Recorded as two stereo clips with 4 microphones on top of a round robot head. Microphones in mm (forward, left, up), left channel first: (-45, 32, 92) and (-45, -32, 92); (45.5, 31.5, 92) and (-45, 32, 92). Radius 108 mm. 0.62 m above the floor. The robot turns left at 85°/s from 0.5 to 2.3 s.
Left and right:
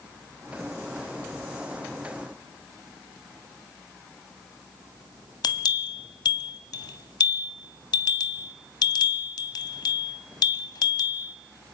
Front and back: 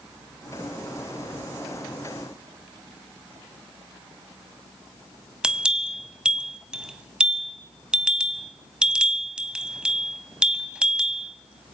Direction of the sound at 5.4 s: 100° left.